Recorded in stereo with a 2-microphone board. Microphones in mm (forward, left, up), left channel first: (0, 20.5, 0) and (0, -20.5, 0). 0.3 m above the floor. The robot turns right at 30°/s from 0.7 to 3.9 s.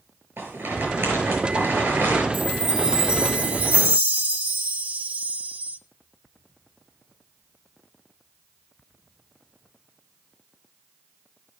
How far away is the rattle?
About 5.5 m.